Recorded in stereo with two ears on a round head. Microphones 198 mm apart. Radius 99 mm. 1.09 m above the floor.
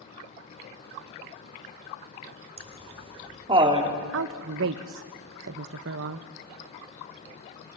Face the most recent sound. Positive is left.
turn(degrees=-60)  # may be behind; listen again after turning